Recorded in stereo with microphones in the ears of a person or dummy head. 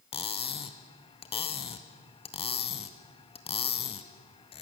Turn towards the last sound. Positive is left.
turn(degrees=30)  # may be behind; listen again after turning